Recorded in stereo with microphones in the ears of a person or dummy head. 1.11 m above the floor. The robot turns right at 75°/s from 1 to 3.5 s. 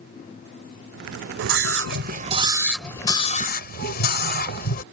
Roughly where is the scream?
Right.